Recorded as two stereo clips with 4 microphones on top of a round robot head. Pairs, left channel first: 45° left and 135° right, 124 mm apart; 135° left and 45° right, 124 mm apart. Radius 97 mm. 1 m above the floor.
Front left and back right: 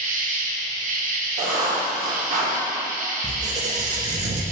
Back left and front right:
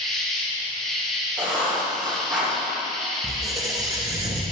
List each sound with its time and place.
0.0 s an insect: 135° right, 1.0 m
1.4 s writing: 125° right, 2.0 m
3.2 s a squeak: 110° right, 0.5 m